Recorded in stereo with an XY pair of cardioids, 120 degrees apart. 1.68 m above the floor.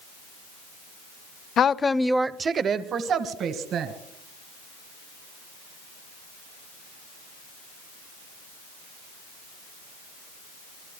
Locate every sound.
1.6 s a woman speaking: 50° left, 0.6 m; by 3.9 s 65° right, 1.9 m